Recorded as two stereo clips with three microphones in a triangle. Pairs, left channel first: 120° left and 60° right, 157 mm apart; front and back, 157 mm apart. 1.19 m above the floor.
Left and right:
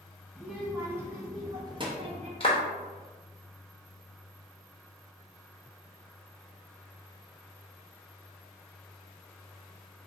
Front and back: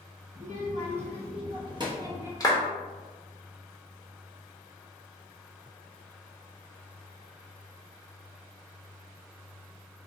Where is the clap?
65° left, 1.0 m.